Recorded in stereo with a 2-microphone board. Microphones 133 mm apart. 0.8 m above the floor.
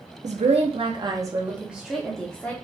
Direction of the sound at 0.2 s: 65° right (ahead or behind).